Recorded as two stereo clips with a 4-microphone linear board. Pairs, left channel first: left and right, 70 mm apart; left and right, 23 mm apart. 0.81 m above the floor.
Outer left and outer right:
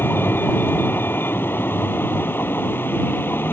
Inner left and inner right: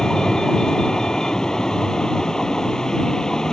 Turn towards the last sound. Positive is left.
turn(degrees=30)  # may be behind; listen again after turning